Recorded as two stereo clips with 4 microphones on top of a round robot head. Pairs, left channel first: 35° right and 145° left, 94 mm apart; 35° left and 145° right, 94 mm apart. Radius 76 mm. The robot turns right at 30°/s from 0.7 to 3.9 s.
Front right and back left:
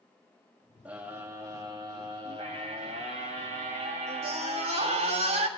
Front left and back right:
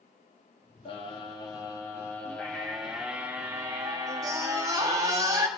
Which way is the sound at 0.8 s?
70° left.